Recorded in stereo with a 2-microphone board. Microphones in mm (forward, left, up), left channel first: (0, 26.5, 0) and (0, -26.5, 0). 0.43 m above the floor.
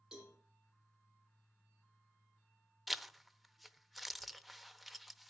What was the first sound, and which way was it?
A cowbell, 10° right (ahead or behind).